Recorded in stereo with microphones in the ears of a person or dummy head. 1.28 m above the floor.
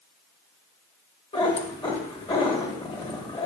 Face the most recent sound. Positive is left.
turn(degrees=30)  # may be behind; listen again after turning